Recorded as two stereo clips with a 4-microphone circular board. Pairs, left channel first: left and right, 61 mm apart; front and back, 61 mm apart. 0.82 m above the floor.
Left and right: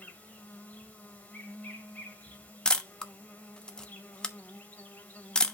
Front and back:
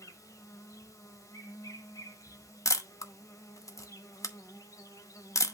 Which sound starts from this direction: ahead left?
An insect, at 0.0 s.